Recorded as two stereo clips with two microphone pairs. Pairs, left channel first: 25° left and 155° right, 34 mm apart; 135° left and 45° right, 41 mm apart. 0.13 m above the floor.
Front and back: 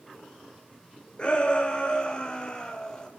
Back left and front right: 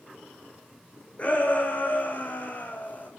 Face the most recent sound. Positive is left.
turn(degrees=90)